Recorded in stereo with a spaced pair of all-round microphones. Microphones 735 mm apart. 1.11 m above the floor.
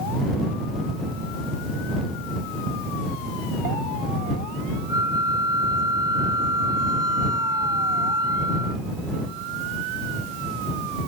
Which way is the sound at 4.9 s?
5° right (ahead or behind).